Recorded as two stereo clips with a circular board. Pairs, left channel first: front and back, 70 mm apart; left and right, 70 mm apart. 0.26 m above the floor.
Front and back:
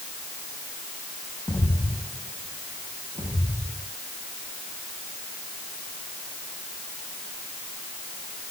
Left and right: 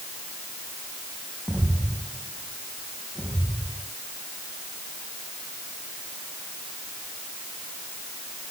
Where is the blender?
I don't hear a blender.